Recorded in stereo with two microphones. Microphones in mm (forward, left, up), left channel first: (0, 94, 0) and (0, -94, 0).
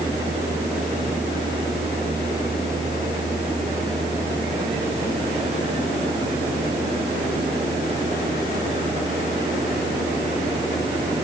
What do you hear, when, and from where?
Only background noise.